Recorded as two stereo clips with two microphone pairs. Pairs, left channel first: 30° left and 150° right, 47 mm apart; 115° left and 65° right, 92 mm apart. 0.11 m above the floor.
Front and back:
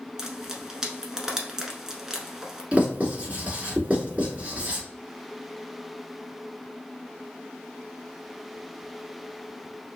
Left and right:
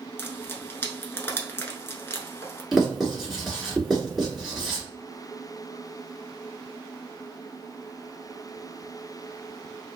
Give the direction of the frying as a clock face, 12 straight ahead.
7 o'clock.